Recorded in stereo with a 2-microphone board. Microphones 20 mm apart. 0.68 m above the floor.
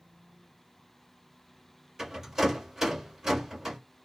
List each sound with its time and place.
2.0 s a rattle: 30° right (ahead or behind), 1.6 m